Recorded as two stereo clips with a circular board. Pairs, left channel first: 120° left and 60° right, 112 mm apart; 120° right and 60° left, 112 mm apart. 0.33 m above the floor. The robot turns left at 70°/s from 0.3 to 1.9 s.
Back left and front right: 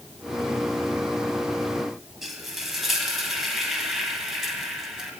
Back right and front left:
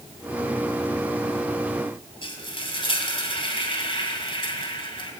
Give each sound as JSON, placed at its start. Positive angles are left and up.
{"t": 2.2, "sound": "frying", "azimuth_deg": -145, "distance_m": 2.5}